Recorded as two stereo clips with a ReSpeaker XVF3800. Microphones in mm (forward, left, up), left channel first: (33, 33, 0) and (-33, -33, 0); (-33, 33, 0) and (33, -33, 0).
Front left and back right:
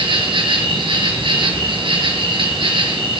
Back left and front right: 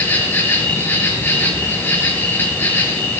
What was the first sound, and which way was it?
An insect, 160° right.